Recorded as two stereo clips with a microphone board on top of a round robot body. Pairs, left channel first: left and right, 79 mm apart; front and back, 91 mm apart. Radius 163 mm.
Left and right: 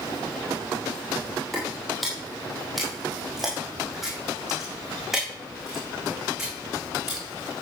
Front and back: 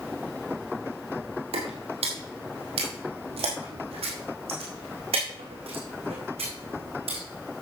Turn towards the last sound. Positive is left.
turn(degrees=-175)